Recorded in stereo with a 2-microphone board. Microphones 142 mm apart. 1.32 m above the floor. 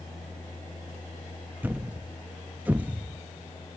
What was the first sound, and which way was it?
A thud, 10° right (ahead or behind).